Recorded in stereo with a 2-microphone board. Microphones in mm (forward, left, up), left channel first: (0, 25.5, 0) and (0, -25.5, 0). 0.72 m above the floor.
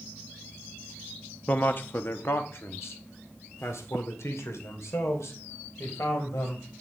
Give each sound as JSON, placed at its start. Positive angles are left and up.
{"t": 1.5, "sound": "a man speaking", "side_deg": 35, "distance_m": 0.8}